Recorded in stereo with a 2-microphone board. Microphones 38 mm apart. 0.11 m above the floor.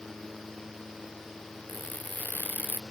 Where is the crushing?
50° left (ahead or behind).